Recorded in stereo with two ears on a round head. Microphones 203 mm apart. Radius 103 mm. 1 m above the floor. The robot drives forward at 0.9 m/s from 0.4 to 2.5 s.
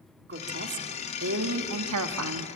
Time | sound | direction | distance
0.3 | a woman speaking | 45° right (ahead or behind) | 2.5 m